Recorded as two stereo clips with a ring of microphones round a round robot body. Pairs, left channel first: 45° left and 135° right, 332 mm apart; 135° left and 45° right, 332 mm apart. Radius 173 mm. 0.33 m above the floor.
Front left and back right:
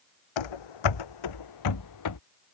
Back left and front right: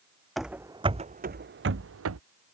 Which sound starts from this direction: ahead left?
Running footsteps, at 0.4 s.